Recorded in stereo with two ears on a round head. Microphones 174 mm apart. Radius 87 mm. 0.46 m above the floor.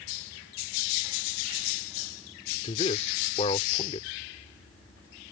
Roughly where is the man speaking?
Left.